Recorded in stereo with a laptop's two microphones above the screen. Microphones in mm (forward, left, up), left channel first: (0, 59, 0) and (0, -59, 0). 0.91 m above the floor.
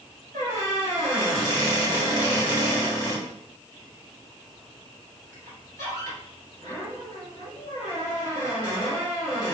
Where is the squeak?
30° left (ahead or behind), 1.6 m.